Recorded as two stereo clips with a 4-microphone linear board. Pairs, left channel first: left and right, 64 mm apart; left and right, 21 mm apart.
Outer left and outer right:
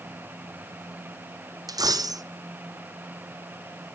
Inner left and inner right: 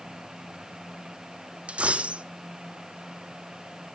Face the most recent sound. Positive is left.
turn(degrees=-80)